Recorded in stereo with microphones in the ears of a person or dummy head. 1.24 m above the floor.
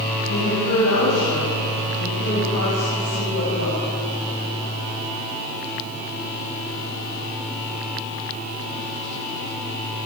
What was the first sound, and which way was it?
A woman speaking, 90° left.